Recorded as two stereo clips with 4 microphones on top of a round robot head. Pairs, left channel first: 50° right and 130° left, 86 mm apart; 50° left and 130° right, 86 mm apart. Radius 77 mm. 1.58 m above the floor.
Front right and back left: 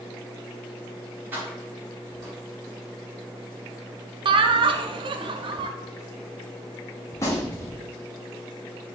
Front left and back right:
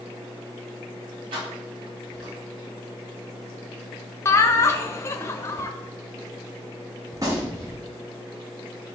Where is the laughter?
105° left, 0.6 m.